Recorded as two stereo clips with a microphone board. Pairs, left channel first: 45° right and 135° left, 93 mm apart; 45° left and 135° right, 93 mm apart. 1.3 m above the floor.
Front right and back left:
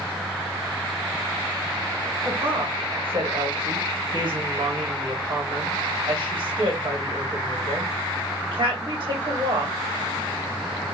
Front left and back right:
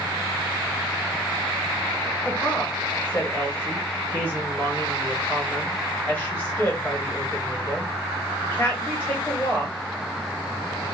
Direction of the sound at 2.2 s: 110° left.